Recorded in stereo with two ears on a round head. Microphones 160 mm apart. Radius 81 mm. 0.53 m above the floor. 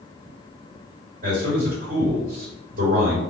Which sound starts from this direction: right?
A man speaking, at 1.2 s.